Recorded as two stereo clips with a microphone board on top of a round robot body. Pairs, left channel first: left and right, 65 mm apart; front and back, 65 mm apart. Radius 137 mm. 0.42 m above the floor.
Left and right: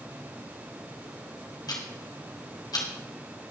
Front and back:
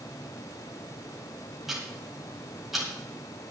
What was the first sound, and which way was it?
Ticking, 95° left.